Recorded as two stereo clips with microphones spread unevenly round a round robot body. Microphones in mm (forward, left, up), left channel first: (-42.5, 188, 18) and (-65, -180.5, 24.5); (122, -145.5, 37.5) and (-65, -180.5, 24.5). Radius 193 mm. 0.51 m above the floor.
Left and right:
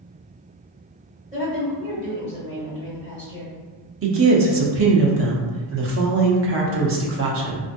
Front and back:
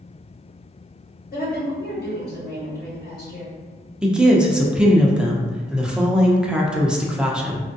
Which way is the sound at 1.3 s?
20° right.